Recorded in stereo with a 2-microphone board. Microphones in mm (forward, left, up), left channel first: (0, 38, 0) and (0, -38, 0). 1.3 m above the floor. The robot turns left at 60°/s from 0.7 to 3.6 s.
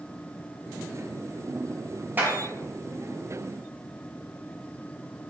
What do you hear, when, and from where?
2.2 s a clap: 25° right (ahead or behind), 1.6 m; by 2.4 s 35° right (ahead or behind), 1.6 m